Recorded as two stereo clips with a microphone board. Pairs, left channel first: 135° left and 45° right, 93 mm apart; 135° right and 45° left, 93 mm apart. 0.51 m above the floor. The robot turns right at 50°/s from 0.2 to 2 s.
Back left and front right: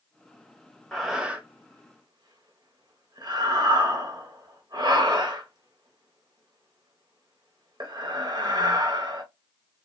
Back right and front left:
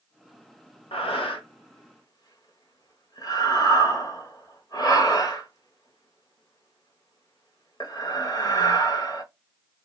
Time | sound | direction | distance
0.9 | breathing | 145° right | 0.7 m